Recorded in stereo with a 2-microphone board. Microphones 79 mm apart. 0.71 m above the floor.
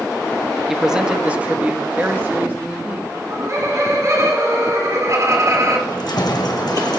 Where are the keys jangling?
65° left (ahead or behind), 1.8 m.